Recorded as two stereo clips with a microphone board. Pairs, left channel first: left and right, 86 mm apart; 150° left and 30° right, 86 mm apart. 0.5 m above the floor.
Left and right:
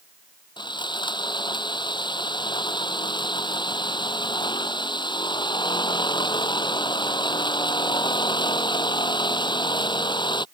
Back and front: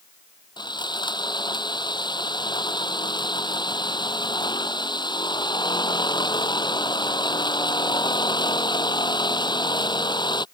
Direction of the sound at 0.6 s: 120° left.